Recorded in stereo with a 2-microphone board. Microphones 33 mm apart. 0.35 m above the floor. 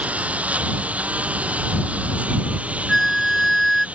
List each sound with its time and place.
0.0 s a lawn mower: 45° right (ahead or behind); by 4.0 s 40° right (ahead or behind)
2.9 s a flute: centre (ahead or behind)